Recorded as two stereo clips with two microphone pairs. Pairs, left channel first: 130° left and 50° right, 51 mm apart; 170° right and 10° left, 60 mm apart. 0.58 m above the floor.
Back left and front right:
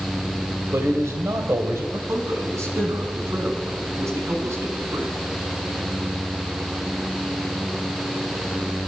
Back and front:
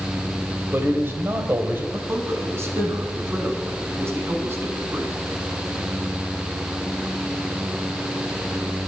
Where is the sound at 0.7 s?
40° right, 2.5 m.